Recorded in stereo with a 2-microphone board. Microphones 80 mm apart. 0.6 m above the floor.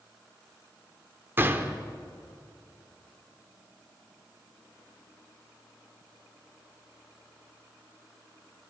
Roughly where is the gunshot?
Right.